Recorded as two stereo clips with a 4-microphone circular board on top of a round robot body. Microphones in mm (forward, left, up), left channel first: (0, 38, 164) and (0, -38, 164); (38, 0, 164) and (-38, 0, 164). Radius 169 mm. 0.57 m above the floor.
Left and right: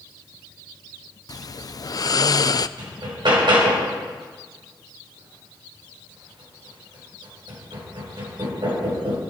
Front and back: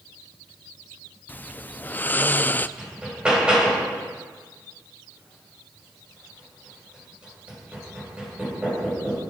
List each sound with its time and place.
1.3 s snoring: 65° left, 0.5 m
2.8 s hammering: 100° right, 3 m